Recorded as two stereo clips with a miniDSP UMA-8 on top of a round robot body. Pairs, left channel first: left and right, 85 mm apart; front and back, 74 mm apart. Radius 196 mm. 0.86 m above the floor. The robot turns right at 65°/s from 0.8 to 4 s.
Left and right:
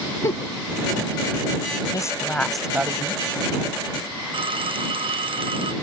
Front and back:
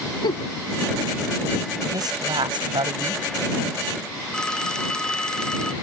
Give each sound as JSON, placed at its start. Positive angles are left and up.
{"t": 0.2, "sound": "a giggle", "azimuth_deg": 30}
{"t": 1.9, "sound": "a woman speaking", "azimuth_deg": 140}
{"t": 4.3, "sound": "a phone ringing", "azimuth_deg": -80}